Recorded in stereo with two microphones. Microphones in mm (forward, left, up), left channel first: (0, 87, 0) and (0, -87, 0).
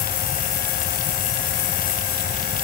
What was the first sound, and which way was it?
Only background noise.